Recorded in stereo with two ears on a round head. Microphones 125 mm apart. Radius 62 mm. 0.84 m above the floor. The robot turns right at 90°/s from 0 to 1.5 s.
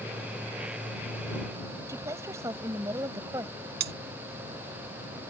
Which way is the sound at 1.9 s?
20° right (ahead or behind).